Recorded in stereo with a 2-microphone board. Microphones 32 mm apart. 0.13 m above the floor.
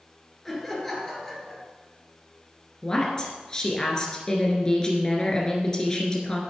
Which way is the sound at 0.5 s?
10° left (ahead or behind).